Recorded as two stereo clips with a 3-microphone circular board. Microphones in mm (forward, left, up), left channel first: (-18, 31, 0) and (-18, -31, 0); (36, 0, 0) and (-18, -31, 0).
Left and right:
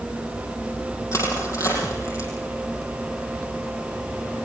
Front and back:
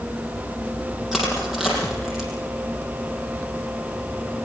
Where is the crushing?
125° left, 6.5 m.